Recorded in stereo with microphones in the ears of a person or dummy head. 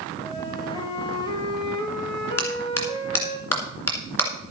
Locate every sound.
0.2 s a flute: 25° left (ahead or behind), 1.9 m
2.4 s a clap: 15° left (ahead or behind), 2 m